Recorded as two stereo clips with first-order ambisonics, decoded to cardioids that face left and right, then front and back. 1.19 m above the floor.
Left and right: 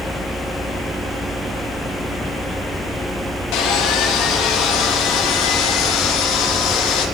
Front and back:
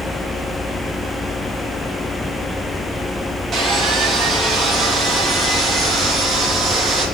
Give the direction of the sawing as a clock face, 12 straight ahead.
8 o'clock.